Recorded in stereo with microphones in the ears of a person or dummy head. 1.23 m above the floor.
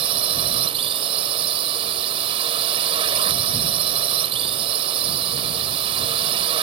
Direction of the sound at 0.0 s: 30° right (ahead or behind).